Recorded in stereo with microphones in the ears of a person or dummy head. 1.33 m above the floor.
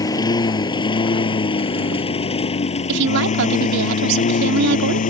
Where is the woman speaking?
65° right (ahead or behind).